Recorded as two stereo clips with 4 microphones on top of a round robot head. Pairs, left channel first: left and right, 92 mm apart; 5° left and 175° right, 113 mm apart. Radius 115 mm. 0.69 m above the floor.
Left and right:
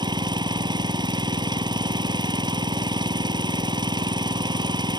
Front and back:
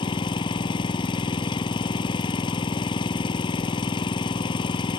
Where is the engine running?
50° right.